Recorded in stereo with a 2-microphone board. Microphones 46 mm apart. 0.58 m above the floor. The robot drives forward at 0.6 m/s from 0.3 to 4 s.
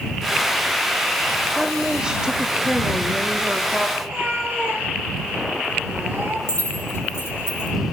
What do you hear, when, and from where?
1.6 s a woman speaking: 15° right (ahead or behind), 1.1 m
4.0 s a cat meowing: 60° right (ahead or behind), 3 m
6.5 s keys jangling: 60° left (ahead or behind), 4.5 m